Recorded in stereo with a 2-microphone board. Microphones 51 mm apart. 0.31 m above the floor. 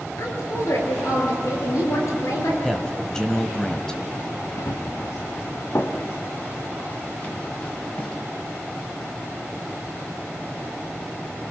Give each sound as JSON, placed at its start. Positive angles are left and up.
{"t": 0.2, "sound": "a woman speaking", "side_deg": 80, "distance_m": 6.0}
{"t": 2.6, "sound": "a man speaking", "side_deg": 10, "distance_m": 1.5}
{"t": 4.6, "sound": "running footsteps", "side_deg": 85, "distance_m": 2.5}